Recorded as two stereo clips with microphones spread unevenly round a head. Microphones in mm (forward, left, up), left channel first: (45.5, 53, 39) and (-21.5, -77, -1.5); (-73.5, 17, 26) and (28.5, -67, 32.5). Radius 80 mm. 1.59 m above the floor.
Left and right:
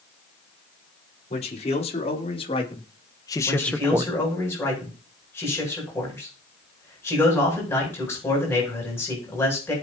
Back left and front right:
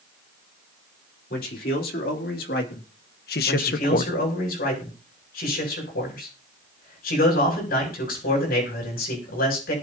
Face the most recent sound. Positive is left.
turn(degrees=140)